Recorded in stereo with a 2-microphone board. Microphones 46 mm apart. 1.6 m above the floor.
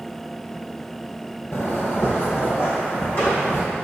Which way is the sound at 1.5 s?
45° left (ahead or behind).